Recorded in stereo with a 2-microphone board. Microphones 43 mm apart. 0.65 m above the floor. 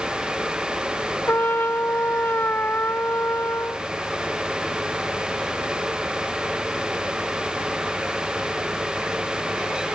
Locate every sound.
1.3 s a trumpet: 55° left (ahead or behind)